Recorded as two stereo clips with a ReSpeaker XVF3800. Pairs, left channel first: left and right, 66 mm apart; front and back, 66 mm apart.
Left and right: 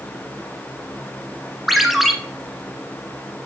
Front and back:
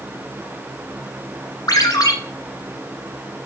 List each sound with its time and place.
1.7 s a ringtone: straight ahead, 1.3 m